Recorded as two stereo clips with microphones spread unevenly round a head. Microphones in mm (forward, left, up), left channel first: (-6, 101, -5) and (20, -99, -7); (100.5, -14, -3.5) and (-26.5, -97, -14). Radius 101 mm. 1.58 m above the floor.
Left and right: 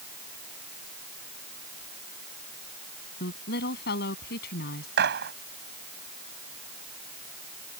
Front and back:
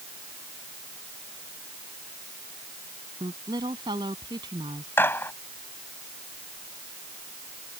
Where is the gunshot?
40° right.